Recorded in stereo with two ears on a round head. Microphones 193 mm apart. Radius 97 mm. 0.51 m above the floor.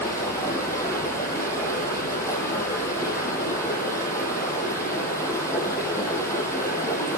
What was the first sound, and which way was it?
Running water, 15° left (ahead or behind).